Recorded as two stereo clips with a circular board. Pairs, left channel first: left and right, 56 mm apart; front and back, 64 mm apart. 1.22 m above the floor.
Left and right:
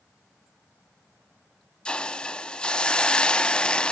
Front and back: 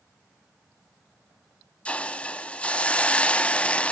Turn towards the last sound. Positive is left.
turn(degrees=35)